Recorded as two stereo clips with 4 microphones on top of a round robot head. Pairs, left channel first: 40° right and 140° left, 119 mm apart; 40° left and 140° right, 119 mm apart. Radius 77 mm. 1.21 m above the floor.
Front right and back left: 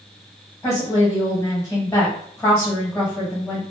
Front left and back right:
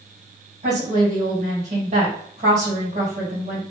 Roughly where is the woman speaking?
Behind right.